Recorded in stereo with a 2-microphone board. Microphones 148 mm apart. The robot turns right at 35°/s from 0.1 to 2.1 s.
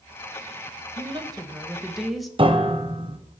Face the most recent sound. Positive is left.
turn(degrees=-35)  # may be behind; listen again after turning